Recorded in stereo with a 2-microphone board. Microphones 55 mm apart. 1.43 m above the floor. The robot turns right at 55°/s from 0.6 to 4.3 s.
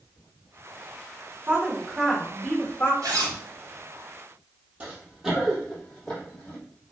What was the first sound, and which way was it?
A woman speaking, 40° right.